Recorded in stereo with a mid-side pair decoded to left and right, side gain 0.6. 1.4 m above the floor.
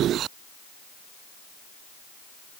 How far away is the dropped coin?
No dropped coin in this recording.